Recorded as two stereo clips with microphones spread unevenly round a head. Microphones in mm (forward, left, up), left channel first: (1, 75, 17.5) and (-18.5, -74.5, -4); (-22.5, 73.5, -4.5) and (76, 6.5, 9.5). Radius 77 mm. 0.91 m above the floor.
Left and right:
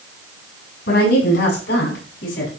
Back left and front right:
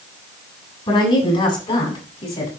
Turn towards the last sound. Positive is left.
turn(degrees=110)